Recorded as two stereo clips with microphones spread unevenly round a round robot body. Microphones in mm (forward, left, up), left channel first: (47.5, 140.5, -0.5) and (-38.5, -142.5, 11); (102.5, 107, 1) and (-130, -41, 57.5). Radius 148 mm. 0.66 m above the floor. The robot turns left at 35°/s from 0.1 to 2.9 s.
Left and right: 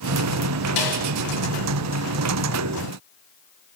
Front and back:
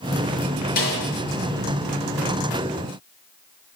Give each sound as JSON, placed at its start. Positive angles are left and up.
{"t": 0.8, "sound": "a snare drum", "azimuth_deg": 95, "distance_m": 6.5}